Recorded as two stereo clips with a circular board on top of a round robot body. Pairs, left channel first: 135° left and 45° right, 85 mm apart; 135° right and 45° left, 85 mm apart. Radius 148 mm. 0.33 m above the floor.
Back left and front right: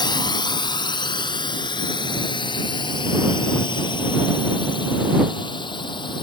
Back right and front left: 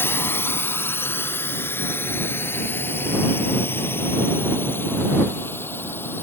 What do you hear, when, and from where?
0.0 s a drone: 165° left; by 6.2 s 160° left